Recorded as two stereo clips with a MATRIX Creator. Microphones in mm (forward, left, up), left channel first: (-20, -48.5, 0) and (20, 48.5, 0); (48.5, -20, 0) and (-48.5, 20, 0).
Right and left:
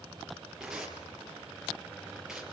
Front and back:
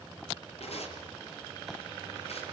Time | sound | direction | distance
0.6 | tearing paper | 20° right | 5 m